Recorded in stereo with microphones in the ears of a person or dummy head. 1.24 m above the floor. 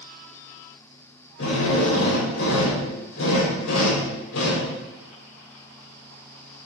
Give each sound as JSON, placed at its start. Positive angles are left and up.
{"t": 1.4, "sound": "a drill", "side_deg": 80, "distance_m": 4.5}